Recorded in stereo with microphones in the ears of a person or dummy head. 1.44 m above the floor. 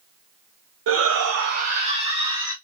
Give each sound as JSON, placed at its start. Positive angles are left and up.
{"t": 0.9, "sound": "a shout", "side_deg": -65, "distance_m": 0.8}